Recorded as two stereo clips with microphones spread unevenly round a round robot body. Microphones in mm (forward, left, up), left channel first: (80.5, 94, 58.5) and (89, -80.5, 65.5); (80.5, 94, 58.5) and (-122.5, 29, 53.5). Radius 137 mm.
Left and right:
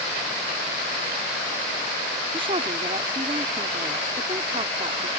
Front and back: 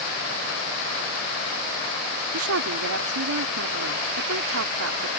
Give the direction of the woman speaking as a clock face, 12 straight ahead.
5 o'clock.